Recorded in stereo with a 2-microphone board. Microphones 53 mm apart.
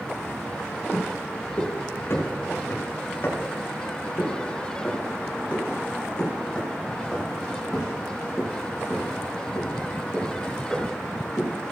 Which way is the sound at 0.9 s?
50° left (ahead or behind).